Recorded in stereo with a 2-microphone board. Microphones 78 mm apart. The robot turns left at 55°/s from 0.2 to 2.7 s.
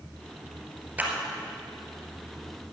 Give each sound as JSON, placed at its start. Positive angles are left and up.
{"t": 1.0, "sound": "a clap", "side_deg": -25, "distance_m": 2.0}